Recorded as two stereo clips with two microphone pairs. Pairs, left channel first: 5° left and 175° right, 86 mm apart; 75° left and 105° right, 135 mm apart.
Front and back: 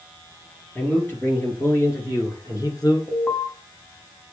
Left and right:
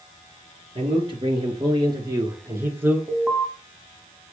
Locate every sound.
0.8 s a man speaking: 65° right, 3 m; by 3.0 s 30° right, 2.5 m
3.1 s an alarm: 45° right, 1.7 m